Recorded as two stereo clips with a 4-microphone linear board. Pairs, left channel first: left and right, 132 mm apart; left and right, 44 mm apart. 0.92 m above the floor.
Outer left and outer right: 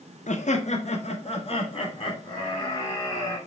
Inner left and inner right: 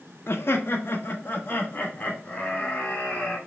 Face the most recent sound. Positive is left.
turn(degrees=30)  # may be behind; listen again after turning